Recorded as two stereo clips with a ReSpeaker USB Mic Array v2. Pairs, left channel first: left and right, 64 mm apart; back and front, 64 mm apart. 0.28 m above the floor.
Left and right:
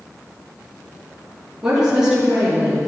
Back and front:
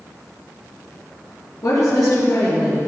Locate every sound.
1.6 s a woman speaking: 175° right, 5 m